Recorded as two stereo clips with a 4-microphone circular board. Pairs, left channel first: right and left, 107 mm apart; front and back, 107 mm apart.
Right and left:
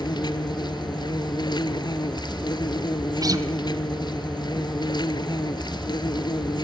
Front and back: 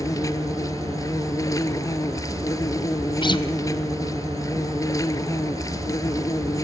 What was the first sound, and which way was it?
An insect, 55° right.